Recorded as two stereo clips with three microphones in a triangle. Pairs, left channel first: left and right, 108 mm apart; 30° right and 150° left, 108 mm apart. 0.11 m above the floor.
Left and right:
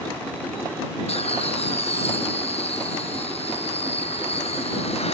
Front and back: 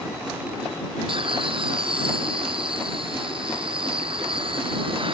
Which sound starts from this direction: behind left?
Laughter, at 1.1 s.